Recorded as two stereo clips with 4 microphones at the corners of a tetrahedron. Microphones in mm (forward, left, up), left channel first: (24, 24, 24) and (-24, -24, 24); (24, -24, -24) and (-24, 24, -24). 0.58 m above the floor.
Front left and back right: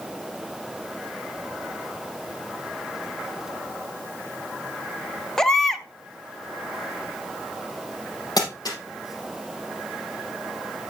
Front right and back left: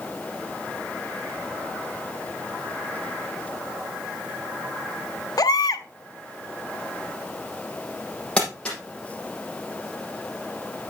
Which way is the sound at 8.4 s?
30° left.